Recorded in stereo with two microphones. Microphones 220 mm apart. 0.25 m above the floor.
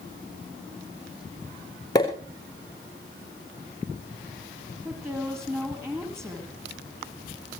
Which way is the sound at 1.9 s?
20° left (ahead or behind).